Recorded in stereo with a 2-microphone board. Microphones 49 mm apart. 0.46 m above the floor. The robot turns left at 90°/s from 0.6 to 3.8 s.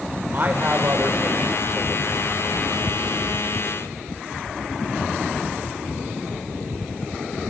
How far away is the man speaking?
About 1.9 m.